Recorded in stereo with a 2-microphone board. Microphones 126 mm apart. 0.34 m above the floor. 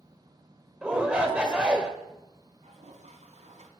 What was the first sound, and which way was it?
A shout, 10° right (ahead or behind).